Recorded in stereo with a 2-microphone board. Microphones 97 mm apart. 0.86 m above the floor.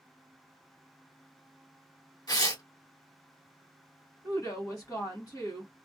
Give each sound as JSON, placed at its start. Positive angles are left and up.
{"t": 2.3, "sound": "tearing paper", "side_deg": 50, "distance_m": 1.4}
{"t": 4.2, "sound": "a woman speaking", "side_deg": 40, "distance_m": 1.3}